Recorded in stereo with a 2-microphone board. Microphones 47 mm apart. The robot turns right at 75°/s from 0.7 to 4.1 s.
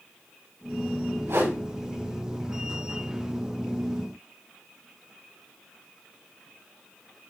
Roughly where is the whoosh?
Right.